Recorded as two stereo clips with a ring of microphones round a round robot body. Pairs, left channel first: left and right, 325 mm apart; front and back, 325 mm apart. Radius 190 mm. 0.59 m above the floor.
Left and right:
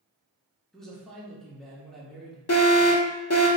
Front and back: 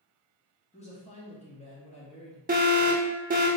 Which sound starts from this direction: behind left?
An alarm, at 2.5 s.